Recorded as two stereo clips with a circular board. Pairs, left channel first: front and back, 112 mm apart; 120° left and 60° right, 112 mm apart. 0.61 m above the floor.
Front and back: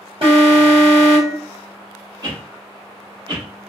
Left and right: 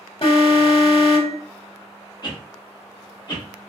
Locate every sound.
0.2 s an alarm: 150° left, 1.6 m
2.2 s a whoosh: 145° left, 1.3 m